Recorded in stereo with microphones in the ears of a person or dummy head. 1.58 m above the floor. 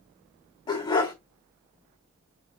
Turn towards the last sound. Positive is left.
turn(degrees=20)  # may be behind; listen again after turning